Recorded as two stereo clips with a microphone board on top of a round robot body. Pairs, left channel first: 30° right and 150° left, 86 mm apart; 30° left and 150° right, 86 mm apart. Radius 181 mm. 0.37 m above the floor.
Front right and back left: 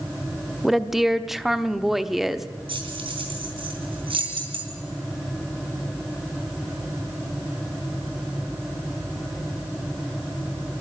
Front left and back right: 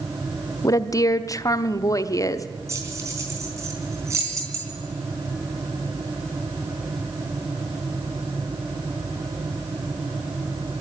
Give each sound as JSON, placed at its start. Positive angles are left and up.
{"t": 0.6, "sound": "a woman speaking", "azimuth_deg": 65, "distance_m": 1.1}
{"t": 2.7, "sound": "keys jangling", "azimuth_deg": 155, "distance_m": 3.5}